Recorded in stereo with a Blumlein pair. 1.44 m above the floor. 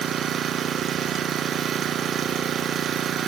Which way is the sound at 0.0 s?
25° right.